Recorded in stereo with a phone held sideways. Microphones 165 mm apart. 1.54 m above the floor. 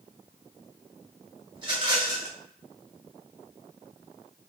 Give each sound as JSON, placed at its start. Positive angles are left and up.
{"t": 1.6, "sound": "a rattle", "side_deg": -30, "distance_m": 2.0}